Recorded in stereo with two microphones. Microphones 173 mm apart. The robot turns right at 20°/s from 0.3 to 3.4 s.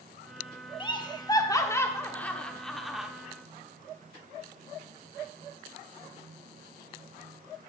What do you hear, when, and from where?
0.8 s laughter: 25° left (ahead or behind), 0.9 m; by 3.1 s 5° right (ahead or behind), 0.9 m